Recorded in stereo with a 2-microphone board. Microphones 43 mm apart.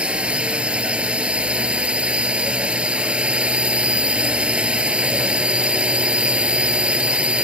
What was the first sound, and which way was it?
A drone, 30° right (ahead or behind).